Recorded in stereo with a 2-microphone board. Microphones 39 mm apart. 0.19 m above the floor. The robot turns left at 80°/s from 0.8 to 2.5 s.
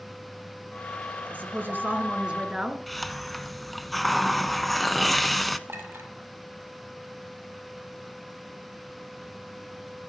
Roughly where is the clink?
Right.